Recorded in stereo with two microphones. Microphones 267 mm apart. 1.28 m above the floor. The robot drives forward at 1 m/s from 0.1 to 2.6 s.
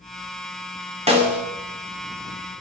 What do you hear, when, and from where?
1.1 s a snare drum: 20° right (ahead or behind), 3 m